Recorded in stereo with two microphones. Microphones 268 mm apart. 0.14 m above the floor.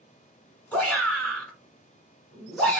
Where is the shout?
5° left (ahead or behind), 1.6 m.